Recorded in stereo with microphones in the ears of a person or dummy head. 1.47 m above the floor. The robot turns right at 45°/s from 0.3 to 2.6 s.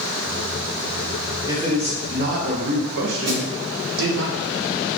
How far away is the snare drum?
About 1.4 m.